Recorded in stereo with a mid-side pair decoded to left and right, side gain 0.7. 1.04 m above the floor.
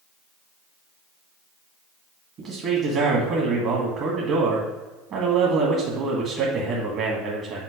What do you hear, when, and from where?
2.4 s a man speaking: 50° right, 1.2 m